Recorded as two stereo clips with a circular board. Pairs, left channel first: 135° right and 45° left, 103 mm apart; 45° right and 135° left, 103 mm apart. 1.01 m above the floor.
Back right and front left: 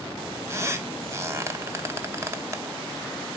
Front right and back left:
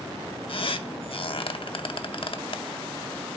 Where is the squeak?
15° right, 0.6 m.